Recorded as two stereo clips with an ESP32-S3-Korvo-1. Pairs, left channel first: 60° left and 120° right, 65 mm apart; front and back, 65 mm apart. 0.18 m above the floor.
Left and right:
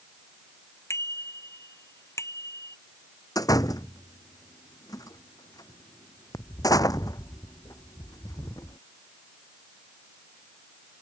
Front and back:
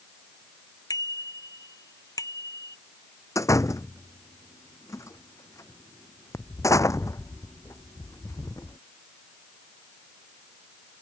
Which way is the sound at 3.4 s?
35° left.